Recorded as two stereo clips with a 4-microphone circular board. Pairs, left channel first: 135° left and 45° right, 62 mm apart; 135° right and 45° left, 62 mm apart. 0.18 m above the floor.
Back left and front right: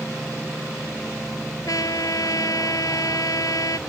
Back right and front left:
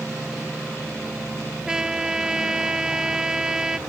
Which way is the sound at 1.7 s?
125° left.